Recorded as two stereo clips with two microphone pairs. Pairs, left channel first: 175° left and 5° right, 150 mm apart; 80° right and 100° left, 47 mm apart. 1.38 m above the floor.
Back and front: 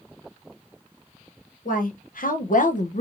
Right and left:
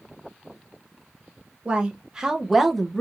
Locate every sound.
1.6 s a woman speaking: 165° left, 1.1 m; by 3.0 s 155° right, 0.5 m